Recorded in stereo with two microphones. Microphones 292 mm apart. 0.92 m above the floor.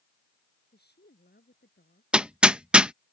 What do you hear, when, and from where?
0.7 s a woman speaking: 35° left (ahead or behind)
2.1 s hammering: 5° right (ahead or behind)